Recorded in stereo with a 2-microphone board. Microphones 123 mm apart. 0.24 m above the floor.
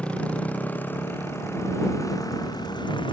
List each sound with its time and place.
0.0 s a motorcycle: 10° left (ahead or behind); by 3.1 s 45° left (ahead or behind)